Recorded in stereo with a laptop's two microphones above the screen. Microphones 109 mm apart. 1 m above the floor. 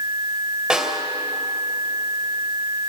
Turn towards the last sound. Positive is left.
turn(degrees=-10)  # may be behind; listen again after turning